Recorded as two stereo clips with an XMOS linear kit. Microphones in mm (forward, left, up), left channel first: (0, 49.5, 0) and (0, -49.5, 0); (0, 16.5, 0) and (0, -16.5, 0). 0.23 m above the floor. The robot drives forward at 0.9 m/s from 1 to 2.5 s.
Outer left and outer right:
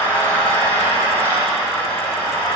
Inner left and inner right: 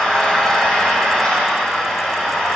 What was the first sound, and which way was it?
An engine running, 20° left (ahead or behind).